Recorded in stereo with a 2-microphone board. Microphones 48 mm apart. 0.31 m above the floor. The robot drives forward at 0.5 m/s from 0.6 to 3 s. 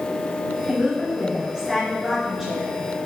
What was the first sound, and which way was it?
A woman speaking, 20° right (ahead or behind).